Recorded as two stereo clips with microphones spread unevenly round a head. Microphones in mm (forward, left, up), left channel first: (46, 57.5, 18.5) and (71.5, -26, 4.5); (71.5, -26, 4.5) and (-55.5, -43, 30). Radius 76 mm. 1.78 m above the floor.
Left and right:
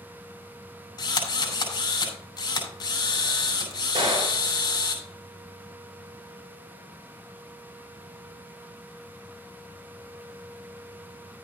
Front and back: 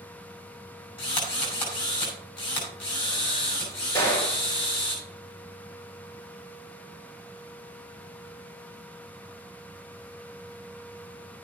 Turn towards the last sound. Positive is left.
turn(degrees=-45)